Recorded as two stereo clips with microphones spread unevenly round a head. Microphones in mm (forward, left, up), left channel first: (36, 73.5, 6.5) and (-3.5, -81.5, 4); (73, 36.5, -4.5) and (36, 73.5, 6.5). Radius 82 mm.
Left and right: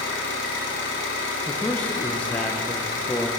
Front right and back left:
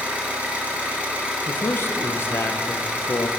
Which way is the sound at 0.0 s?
70° left.